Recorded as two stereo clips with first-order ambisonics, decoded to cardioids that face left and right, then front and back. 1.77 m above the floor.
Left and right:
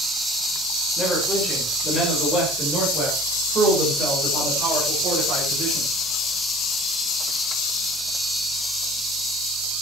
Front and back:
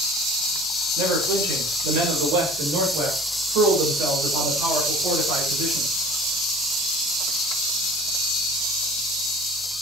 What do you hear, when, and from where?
1.0 s a man speaking: 175° right, 6 m; by 5.9 s 135° right, 7.5 m